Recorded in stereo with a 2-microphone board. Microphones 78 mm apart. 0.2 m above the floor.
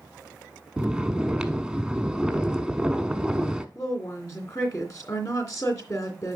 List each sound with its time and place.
0.8 s snoring: 10° right (ahead or behind), 0.8 m
3.8 s a woman speaking: 45° left (ahead or behind), 2.5 m